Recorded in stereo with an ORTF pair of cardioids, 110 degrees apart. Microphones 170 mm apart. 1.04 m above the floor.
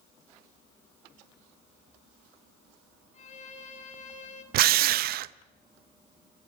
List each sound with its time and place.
3.1 s a violin: 45° left, 3 m
4.5 s a drill: 65° right, 0.6 m